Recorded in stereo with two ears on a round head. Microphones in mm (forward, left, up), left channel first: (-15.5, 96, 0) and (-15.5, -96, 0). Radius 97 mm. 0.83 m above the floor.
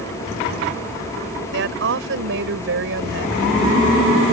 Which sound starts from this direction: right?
A woman speaking, at 1.5 s.